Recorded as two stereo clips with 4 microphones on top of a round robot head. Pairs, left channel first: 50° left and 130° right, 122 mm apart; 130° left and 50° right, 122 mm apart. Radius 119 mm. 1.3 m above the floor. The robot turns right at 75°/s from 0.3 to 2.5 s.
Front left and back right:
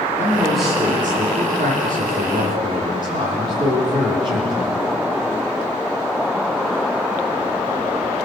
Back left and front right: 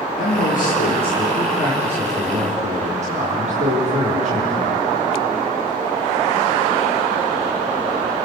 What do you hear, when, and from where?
0.2 s a man speaking: 120° left, 4 m; by 4.8 s 75° right, 4 m